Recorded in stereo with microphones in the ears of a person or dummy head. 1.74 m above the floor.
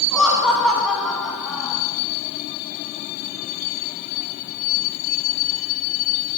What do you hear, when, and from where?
0.1 s laughter: centre (ahead or behind), 1.4 m